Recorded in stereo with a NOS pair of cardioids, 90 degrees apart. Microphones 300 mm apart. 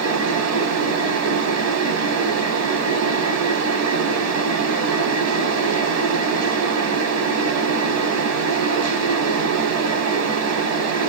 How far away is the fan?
About 0.9 m.